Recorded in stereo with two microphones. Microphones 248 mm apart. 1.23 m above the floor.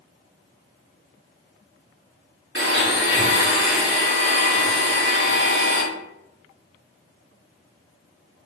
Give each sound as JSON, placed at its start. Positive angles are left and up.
{"t": 2.5, "sound": "a blender", "side_deg": -50, "distance_m": 0.7}